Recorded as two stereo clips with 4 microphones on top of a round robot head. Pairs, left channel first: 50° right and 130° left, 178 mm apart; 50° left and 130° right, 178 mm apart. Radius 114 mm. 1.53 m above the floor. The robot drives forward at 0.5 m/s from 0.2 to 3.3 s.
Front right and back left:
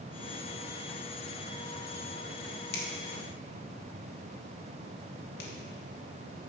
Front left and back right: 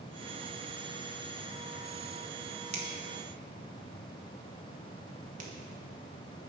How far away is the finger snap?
About 1.8 m.